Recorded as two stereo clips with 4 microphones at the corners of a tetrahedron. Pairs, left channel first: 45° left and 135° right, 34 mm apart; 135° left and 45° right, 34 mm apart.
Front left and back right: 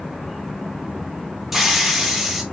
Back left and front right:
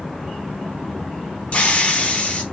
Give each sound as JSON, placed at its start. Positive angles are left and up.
{"t": 1.5, "sound": "a hiss", "azimuth_deg": 140, "distance_m": 0.7}